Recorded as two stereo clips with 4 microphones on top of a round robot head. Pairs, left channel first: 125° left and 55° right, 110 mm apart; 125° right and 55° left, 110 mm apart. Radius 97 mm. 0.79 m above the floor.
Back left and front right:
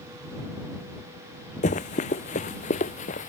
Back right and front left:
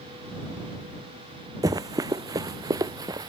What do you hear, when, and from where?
1.6 s running footsteps: 110° left